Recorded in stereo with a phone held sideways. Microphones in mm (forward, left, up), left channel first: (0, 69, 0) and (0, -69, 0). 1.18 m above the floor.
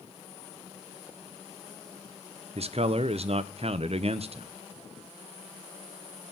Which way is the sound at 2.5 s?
50° right (ahead or behind).